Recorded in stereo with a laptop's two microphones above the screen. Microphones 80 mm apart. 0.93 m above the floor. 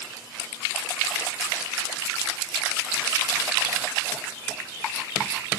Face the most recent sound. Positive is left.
No sound to turn to.